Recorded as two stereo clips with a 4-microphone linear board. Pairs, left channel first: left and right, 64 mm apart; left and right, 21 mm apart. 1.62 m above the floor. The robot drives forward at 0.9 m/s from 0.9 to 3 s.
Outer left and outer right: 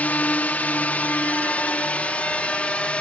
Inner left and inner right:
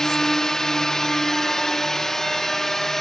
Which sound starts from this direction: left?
A drone, at 0.0 s.